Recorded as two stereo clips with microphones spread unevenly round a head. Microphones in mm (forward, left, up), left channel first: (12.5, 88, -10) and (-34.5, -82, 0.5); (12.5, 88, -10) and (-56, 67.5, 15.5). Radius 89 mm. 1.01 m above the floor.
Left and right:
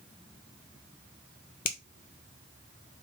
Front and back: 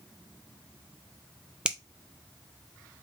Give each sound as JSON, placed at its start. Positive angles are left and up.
{"t": 1.6, "sound": "a finger snap", "azimuth_deg": 120, "distance_m": 0.8}